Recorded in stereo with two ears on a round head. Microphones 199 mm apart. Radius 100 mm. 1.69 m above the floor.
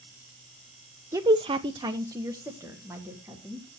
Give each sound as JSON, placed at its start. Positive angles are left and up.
{"t": 1.1, "sound": "a woman speaking", "side_deg": -15, "distance_m": 0.5}